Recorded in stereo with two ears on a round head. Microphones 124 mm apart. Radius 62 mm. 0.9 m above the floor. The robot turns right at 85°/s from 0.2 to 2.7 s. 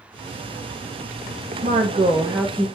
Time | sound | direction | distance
1.6 | a woman speaking | 75° right | 0.7 m